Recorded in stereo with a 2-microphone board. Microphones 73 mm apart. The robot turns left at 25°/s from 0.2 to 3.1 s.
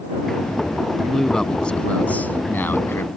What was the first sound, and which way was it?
A man speaking, 175° left.